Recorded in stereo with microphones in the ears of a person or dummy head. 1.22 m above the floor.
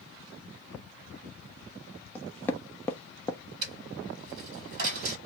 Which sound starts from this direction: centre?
Knocking, at 2.1 s.